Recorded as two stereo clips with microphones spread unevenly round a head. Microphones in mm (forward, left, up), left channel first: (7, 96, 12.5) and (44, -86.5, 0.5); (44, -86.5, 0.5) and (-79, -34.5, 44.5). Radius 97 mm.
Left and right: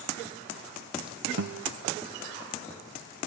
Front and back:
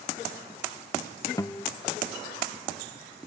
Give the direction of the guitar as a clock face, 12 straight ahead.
3 o'clock.